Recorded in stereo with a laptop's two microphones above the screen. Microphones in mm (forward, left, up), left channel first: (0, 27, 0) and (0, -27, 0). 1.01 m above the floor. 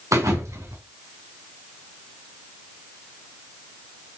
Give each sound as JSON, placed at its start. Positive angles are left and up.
{"t": 0.1, "sound": "a thud", "side_deg": -70, "distance_m": 3.0}